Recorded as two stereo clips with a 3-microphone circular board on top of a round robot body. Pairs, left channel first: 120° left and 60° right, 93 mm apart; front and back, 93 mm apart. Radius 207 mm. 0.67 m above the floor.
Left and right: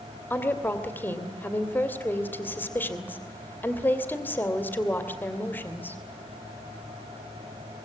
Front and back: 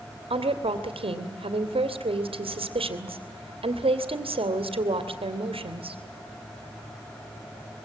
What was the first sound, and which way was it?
A woman speaking, 170° right.